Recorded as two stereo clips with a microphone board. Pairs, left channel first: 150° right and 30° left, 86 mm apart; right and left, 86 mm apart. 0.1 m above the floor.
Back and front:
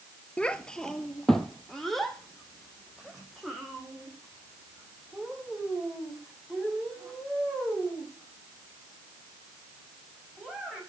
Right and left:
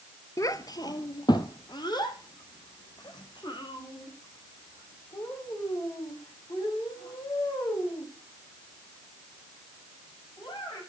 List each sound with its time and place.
0.4 s a child speaking: 80° right, 0.8 m; by 10.8 s 60° right, 11 m